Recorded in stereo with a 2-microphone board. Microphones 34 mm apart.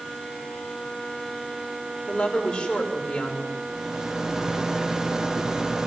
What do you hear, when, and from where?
2.1 s a woman speaking: 20° left (ahead or behind), 4.5 m
3.7 s a rattle: 15° right (ahead or behind), 0.7 m